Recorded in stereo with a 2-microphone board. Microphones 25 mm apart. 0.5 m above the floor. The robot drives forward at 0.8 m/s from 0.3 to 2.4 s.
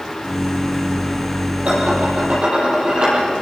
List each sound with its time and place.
1.6 s dishes clattering: 50° right (ahead or behind), 9.5 m; by 3.2 s 45° right (ahead or behind), 10 m